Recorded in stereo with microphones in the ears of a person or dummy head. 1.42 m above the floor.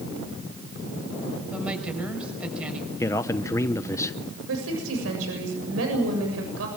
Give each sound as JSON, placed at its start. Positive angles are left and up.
{"t": 1.5, "sound": "a woman speaking", "side_deg": -10, "distance_m": 6.5}
{"t": 3.0, "sound": "a man speaking", "side_deg": 10, "distance_m": 0.8}
{"t": 4.5, "sound": "a woman speaking", "side_deg": -85, "distance_m": 7.5}